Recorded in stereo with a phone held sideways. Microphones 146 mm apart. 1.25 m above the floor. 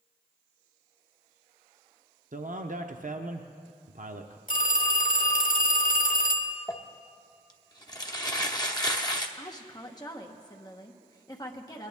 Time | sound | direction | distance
2.3 | a man speaking | 65° right (ahead or behind) | 0.7 m
4.5 | a phone ringing | 65° left (ahead or behind) | 1.2 m
6.7 | crumpling | 25° left (ahead or behind) | 0.9 m
9.4 | a woman speaking | 25° left (ahead or behind) | 1.2 m